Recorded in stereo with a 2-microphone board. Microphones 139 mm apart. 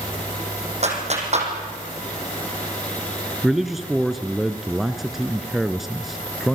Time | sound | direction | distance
0.8 | a clap | 50° right (ahead or behind) | 5.5 m
3.4 | a man speaking | centre (ahead or behind) | 1.4 m